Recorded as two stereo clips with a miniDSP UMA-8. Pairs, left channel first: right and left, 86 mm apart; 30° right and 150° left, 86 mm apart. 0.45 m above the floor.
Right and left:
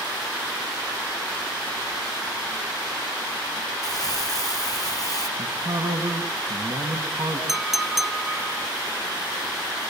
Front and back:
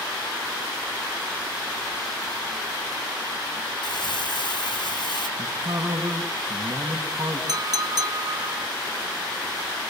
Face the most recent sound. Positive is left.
turn(degrees=175)